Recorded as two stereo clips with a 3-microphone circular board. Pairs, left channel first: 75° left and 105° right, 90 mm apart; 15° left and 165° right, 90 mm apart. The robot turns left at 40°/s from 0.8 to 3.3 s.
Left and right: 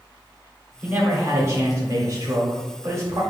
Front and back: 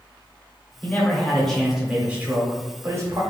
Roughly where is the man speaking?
Ahead right.